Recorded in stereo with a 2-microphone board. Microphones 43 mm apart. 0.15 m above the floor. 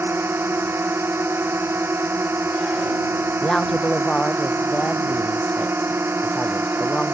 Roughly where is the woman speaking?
Centre.